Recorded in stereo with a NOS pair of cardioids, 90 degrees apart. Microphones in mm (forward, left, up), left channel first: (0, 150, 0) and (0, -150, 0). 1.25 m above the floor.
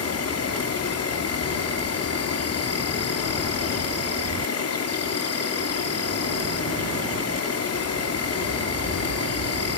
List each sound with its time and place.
0.0 s an insect: 55° left, 3 m